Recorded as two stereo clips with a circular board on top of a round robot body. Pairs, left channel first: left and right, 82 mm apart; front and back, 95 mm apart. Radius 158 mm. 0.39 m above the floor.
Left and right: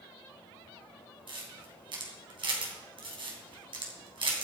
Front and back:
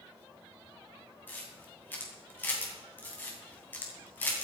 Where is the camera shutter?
70° right, 3 m.